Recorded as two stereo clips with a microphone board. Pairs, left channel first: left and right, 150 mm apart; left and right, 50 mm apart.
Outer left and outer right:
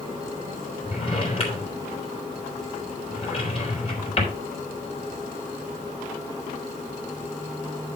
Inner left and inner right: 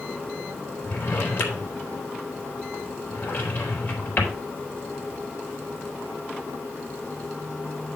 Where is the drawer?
40° left (ahead or behind), 3.5 m.